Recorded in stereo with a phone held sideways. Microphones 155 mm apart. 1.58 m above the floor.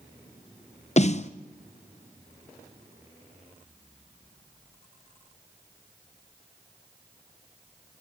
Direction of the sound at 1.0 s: 45° left (ahead or behind).